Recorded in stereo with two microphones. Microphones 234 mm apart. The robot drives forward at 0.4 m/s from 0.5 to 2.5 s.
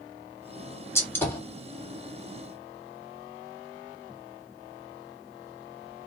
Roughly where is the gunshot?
Centre.